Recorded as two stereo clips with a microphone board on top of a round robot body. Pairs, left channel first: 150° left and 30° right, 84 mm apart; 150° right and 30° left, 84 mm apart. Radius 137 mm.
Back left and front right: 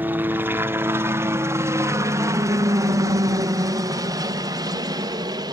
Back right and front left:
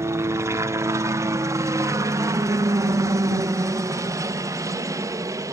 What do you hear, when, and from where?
0.0 s a helicopter: 20° left; by 5.5 s 10° right